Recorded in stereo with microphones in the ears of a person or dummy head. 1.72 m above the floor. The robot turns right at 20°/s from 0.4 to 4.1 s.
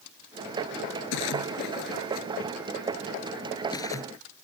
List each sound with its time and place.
1.1 s a splash: 70° left (ahead or behind); by 4.2 s 15° left (ahead or behind)